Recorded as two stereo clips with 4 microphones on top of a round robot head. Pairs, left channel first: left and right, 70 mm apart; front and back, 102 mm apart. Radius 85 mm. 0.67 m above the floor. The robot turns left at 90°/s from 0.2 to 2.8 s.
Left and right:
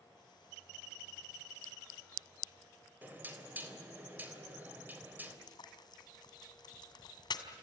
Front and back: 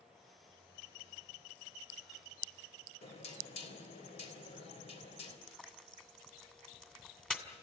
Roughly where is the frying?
Left.